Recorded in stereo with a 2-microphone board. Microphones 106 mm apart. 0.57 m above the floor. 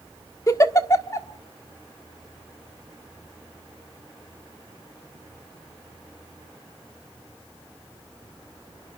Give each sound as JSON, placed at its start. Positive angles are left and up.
{"t": 0.5, "sound": "a giggle", "side_deg": 30, "distance_m": 1.4}